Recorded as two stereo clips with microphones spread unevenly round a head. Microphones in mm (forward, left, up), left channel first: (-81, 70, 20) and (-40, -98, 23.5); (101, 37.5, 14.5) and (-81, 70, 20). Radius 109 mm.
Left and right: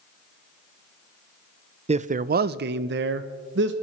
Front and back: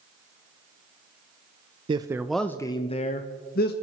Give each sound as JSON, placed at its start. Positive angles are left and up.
{"t": 1.9, "sound": "a man speaking", "azimuth_deg": -125, "distance_m": 0.6}